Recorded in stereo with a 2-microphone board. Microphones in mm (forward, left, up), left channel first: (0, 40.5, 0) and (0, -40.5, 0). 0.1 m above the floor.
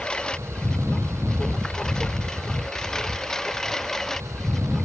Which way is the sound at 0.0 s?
10° left (ahead or behind).